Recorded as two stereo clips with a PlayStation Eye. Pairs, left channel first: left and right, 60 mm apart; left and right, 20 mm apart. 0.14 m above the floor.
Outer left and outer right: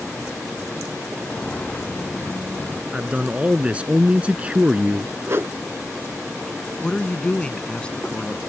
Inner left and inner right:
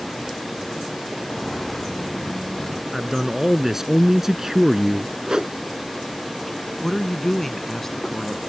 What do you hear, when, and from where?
1.2 s footsteps: 20° left (ahead or behind); by 2.8 s 30° left (ahead or behind)
2.9 s a man speaking: 20° right (ahead or behind)
5.3 s a whoosh: 45° right (ahead or behind)
6.8 s a woman speaking: 20° left (ahead or behind)